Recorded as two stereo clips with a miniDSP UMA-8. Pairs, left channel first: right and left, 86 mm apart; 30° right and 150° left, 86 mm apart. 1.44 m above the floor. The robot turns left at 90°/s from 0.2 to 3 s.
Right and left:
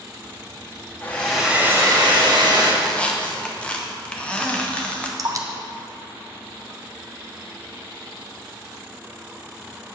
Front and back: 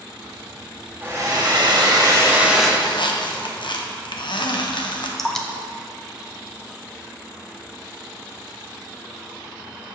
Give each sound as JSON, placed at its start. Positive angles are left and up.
{"t": 1.0, "sound": "a hair dryer", "azimuth_deg": -150, "distance_m": 1.2}
{"t": 2.8, "sound": "a squeak", "azimuth_deg": 0, "distance_m": 0.8}
{"t": 5.2, "sound": "dripping", "azimuth_deg": 50, "distance_m": 0.6}